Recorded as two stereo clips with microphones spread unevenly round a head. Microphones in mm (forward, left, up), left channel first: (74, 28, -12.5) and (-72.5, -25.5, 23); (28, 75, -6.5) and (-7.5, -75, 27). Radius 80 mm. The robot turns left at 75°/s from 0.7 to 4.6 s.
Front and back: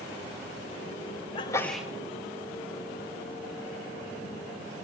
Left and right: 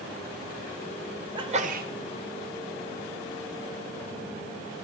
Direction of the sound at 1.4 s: 40° right.